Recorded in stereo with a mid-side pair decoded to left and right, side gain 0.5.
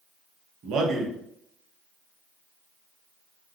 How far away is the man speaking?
About 0.8 m.